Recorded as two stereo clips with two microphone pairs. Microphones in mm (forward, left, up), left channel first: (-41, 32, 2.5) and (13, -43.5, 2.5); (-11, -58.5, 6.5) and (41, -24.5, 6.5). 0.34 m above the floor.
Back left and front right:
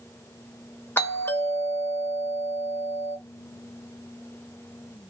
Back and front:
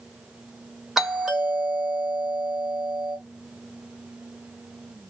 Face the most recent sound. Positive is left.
turn(degrees=115)